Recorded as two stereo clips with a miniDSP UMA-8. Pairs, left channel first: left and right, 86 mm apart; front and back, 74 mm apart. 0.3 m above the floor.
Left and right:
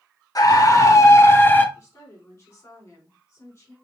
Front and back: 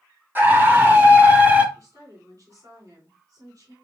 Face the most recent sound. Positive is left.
turn(degrees=145)